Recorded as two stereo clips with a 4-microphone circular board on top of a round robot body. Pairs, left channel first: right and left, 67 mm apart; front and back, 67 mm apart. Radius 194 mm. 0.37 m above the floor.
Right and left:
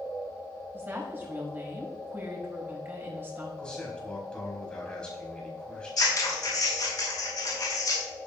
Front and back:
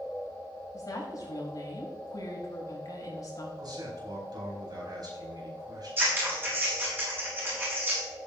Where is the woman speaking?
30° left, 5.5 m.